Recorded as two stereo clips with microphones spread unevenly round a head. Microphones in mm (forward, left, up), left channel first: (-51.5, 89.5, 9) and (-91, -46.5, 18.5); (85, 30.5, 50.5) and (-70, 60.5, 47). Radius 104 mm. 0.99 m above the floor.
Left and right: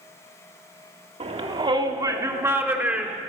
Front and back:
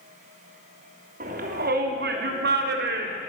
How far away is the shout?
About 3 m.